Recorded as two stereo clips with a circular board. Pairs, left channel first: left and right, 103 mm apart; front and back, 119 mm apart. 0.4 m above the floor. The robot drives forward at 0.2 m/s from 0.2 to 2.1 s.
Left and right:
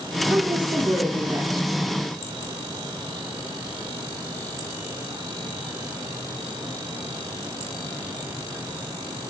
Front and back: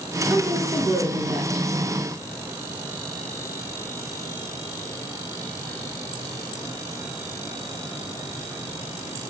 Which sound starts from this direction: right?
A woman speaking, at 0.3 s.